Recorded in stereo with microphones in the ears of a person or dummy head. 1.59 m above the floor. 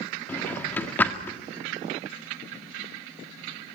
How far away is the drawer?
About 1.8 m.